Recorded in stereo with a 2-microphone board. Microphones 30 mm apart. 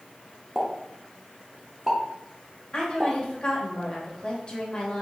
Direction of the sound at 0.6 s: 15° right (ahead or behind).